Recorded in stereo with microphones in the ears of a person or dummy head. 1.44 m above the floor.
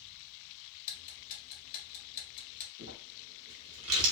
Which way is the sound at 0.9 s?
50° left (ahead or behind).